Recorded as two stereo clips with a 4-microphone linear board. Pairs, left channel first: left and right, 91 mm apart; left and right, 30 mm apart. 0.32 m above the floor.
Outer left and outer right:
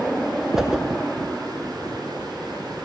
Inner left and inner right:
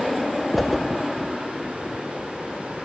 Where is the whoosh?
5° right (ahead or behind), 0.6 m.